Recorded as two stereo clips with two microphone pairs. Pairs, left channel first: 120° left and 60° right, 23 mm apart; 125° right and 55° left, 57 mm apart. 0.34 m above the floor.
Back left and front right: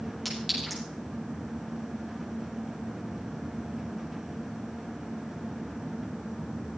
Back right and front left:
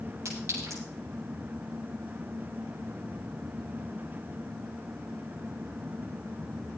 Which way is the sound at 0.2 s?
35° left.